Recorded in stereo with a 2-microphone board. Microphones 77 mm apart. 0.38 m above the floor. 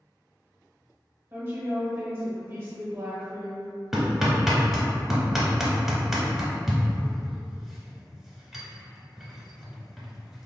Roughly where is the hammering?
Centre.